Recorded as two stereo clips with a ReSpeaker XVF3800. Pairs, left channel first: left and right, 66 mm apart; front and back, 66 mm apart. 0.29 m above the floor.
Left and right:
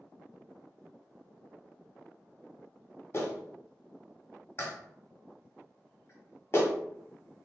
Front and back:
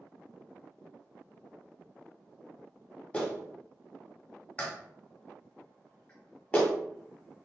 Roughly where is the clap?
Ahead left.